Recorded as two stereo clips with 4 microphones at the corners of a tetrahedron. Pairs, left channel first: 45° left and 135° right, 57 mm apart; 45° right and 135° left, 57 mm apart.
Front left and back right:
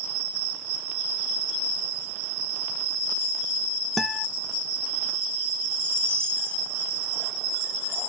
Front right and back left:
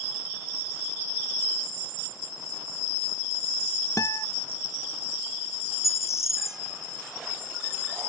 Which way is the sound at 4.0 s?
45° right.